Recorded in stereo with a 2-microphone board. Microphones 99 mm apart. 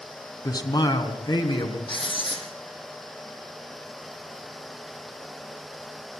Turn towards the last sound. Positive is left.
turn(degrees=60)  # may be behind; listen again after turning